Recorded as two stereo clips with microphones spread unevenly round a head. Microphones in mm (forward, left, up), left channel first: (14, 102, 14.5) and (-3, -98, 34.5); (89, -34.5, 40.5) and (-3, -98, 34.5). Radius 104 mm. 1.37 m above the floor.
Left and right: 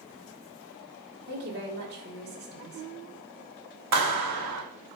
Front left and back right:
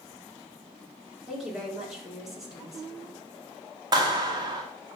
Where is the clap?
95° right, 2.5 m.